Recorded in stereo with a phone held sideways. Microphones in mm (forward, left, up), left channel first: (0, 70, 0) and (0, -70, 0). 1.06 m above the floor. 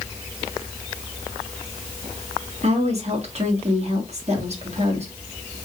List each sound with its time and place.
2.6 s a woman speaking: 50° right (ahead or behind), 1.7 m